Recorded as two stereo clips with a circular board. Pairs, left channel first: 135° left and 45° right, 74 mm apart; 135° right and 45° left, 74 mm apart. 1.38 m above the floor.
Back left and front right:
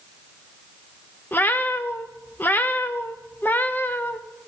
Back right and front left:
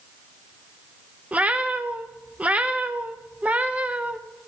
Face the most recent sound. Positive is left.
turn(degrees=100)